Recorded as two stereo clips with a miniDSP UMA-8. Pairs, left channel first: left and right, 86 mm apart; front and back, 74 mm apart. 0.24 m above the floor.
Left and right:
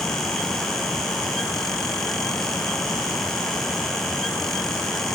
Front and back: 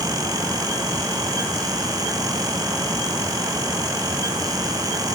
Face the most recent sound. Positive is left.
No sound to turn to.